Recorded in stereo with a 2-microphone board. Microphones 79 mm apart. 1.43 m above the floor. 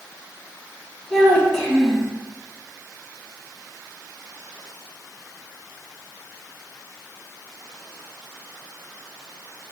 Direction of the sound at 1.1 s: 10° left (ahead or behind).